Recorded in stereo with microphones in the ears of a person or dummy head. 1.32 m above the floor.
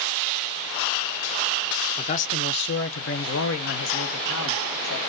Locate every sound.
2.0 s a man speaking: 25° left (ahead or behind), 0.7 m; by 5.0 s 70° left (ahead or behind), 2.5 m